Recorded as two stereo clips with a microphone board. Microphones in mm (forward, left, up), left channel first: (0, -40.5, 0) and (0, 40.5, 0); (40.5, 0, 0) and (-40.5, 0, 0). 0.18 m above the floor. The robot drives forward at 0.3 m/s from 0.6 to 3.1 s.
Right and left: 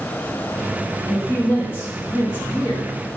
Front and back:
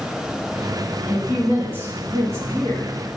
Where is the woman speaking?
130° right, 1.5 m; by 3.0 s 150° right, 1.8 m.